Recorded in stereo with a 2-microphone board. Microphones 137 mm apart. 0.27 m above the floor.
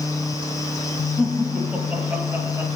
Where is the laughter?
5° right (ahead or behind), 6.5 m; by 2.7 s 20° right (ahead or behind), 5.5 m.